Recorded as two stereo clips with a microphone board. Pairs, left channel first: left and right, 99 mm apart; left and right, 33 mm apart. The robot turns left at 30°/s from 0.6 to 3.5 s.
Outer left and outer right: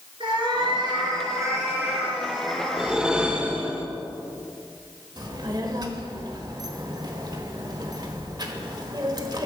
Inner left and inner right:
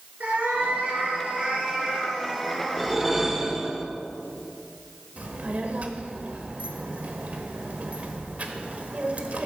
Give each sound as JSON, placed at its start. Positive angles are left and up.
{"t": 0.2, "sound": "a cat meowing", "azimuth_deg": -125, "distance_m": 2.5}
{"t": 2.8, "sound": "a whoosh", "side_deg": -5, "distance_m": 1.1}
{"t": 5.2, "sound": "a child speaking", "side_deg": -45, "distance_m": 1.2}